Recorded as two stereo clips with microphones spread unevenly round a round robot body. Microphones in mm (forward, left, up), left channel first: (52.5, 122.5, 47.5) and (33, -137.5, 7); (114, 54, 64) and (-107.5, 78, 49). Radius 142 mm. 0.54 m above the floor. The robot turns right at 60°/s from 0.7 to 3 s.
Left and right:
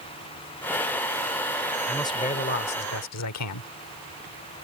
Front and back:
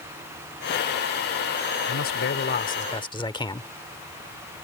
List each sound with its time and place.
1.9 s a man speaking: 5° right; by 3.7 s 65° left